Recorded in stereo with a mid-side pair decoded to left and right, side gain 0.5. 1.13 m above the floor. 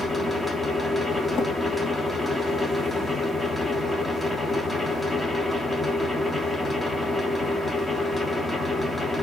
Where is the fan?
15° left, 1.6 m.